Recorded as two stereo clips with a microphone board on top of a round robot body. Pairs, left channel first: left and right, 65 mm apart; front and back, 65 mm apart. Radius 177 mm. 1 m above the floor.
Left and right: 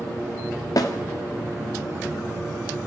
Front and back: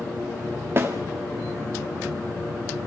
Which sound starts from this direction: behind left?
A snare drum, at 0.8 s.